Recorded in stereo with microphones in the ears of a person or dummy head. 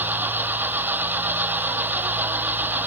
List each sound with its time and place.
0.0 s an engine running: 5° right (ahead or behind)